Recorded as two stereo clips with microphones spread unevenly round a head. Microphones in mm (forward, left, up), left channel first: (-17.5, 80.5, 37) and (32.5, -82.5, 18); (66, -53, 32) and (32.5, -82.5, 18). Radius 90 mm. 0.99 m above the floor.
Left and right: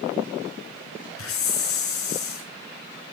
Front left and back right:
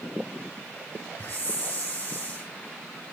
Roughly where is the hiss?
Behind left.